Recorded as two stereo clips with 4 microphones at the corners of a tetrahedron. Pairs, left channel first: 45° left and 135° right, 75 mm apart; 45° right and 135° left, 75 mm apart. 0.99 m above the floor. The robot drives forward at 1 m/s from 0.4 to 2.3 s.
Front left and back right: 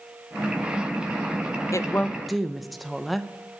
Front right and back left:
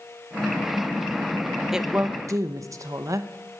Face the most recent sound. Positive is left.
turn(degrees=135)